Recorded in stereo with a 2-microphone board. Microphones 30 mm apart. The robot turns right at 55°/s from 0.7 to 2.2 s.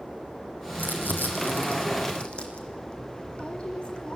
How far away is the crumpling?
About 3.5 m.